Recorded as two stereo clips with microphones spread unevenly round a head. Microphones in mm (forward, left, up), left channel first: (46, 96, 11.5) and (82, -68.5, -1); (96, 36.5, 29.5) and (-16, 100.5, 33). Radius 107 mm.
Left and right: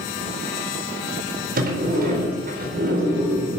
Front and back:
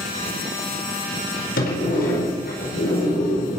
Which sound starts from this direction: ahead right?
A sliding door, at 1.6 s.